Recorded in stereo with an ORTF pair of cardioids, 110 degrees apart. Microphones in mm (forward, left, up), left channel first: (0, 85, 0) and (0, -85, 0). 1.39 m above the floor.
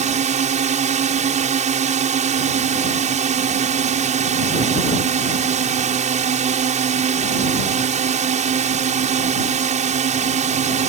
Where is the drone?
45° right.